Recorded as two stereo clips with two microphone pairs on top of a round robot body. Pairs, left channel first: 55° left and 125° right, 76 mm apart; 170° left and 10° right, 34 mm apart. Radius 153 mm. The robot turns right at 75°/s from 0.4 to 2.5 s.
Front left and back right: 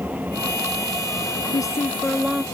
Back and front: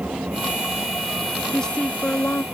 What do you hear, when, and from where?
0.0 s an engine running: 60° right; by 2.5 s 100° left
1.5 s a woman speaking: 90° left; by 2.4 s 160° left